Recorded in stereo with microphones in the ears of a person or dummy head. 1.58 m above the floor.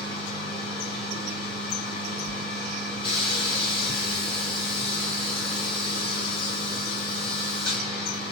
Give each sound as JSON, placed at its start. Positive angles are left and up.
{"t": 0.0, "sound": "a machine running", "side_deg": 35, "distance_m": 1.6}
{"t": 2.2, "sound": "a whoosh", "side_deg": 40, "distance_m": 1.8}